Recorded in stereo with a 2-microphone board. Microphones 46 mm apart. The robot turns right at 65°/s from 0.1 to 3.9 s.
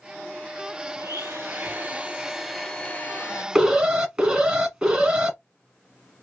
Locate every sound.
1.0 s a blender: 95° right, 1.3 m; by 3.5 s 65° left, 1.3 m
3.5 s an alarm: 5° right (ahead or behind), 1.4 m; by 5.4 s 15° right (ahead or behind), 1.4 m